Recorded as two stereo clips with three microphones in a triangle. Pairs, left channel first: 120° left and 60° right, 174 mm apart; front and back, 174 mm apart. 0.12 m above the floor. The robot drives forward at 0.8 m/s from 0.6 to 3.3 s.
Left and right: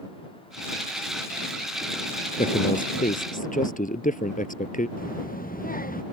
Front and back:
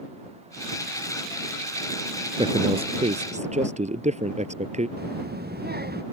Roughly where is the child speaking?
Behind left.